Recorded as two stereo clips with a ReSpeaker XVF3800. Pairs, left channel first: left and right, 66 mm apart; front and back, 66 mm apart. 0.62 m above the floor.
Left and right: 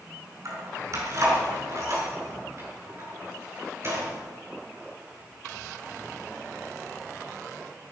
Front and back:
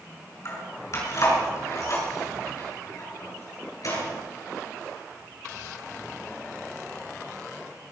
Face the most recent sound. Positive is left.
turn(degrees=-40)